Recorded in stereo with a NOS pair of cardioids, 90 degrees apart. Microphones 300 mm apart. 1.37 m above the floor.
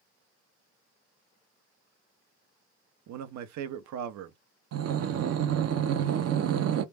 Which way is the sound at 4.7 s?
55° right.